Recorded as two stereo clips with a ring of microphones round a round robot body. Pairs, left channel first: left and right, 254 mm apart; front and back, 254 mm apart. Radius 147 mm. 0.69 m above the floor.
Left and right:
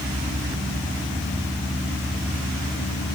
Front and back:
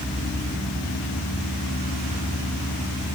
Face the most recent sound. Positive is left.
No sound to turn to.